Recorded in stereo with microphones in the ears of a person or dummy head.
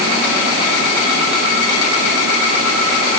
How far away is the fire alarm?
No fire alarm in this recording.